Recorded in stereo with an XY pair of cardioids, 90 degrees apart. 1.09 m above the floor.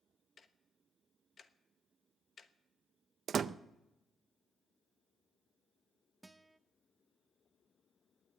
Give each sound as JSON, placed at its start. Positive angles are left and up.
{"t": 0.4, "sound": "ticking", "azimuth_deg": 45, "distance_m": 1.0}
{"t": 3.3, "sound": "a door slam", "azimuth_deg": -55, "distance_m": 0.5}
{"t": 6.2, "sound": "a guitar", "azimuth_deg": -15, "distance_m": 0.7}